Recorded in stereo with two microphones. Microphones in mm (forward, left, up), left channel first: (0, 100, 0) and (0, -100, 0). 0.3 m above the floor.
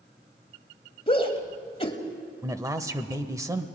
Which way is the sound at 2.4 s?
15° right (ahead or behind).